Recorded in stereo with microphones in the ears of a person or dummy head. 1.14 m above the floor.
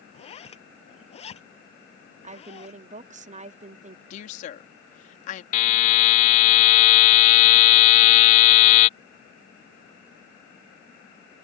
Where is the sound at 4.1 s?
45° left (ahead or behind).